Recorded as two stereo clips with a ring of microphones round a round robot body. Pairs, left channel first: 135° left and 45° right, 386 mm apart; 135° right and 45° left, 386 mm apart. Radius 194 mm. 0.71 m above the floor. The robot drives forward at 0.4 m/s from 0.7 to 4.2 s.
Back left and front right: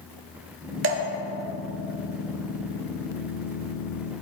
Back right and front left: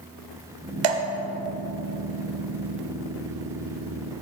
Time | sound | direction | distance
0.8 | dripping | 15° left | 1.1 m